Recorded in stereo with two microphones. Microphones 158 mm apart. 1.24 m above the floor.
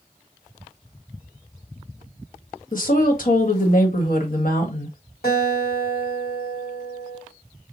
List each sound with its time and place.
2.7 s a woman speaking: 60° left (ahead or behind), 1.4 m
5.2 s a guitar: 80° left, 2.5 m